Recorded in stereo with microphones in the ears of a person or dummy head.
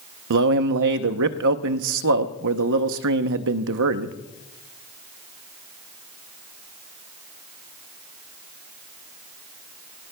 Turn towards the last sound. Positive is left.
turn(degrees=-65)  # may be behind; listen again after turning